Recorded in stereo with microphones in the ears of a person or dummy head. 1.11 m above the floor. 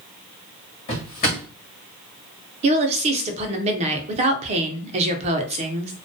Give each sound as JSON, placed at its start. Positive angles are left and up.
{"t": 0.9, "sound": "a drawer", "side_deg": 40, "distance_m": 1.2}
{"t": 2.6, "sound": "a woman speaking", "side_deg": -40, "distance_m": 0.6}